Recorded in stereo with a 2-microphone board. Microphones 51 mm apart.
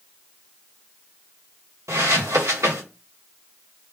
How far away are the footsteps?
About 1.0 m.